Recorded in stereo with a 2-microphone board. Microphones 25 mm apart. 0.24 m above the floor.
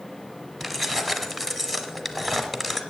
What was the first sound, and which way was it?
Keys jangling, 5° left (ahead or behind).